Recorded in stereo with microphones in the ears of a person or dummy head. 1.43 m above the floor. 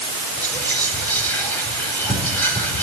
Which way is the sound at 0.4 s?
5° left (ahead or behind).